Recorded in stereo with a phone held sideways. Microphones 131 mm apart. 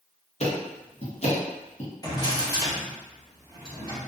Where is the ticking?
55° left (ahead or behind), 0.9 m.